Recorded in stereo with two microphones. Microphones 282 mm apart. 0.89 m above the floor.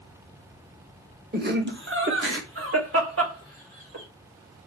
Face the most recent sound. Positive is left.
turn(degrees=-50)  # may be behind; listen again after turning